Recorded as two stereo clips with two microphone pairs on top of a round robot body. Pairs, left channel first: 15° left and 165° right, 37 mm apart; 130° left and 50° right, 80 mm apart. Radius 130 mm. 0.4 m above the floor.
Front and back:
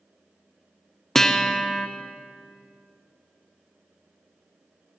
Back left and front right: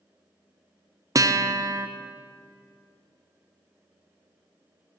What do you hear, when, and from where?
1.1 s a guitar: 65° right, 0.5 m